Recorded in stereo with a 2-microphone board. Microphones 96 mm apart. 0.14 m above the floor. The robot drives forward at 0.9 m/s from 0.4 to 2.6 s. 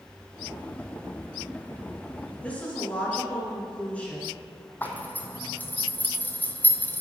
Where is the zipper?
20° left (ahead or behind), 0.9 m.